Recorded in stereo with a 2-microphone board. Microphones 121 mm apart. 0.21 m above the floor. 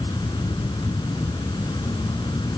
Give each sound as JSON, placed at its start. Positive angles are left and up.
{"t": 0.0, "sound": "an insect", "side_deg": 40}